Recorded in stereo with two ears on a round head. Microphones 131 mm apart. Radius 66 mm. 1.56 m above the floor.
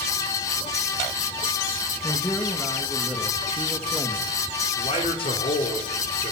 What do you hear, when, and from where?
2.0 s a man speaking: 10° left (ahead or behind), 2.5 m
4.7 s a man speaking: 40° left (ahead or behind), 5 m